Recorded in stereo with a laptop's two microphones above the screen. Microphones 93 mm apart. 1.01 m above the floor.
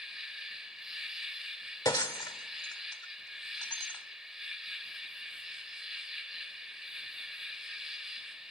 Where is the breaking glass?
40° left (ahead or behind), 0.9 m.